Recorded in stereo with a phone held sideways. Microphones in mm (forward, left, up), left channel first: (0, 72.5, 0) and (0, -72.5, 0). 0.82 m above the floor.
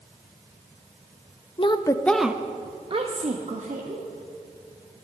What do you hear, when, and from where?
1.6 s a woman speaking: 40° left (ahead or behind), 0.7 m; by 4.0 s 60° right (ahead or behind), 1.5 m